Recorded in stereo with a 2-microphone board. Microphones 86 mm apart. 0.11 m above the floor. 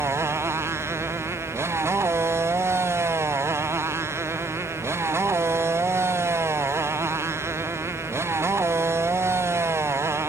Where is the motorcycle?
30° right (ahead or behind).